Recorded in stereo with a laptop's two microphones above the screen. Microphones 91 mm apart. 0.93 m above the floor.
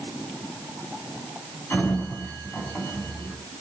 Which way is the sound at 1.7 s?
25° left (ahead or behind).